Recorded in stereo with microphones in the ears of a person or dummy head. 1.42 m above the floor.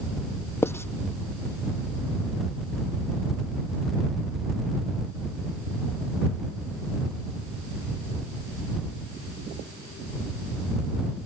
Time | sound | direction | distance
0.6 | writing | 10° left (ahead or behind) | ?